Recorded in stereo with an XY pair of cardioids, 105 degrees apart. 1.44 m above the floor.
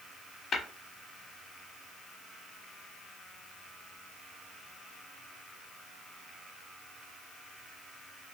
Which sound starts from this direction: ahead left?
Tapping, at 0.5 s.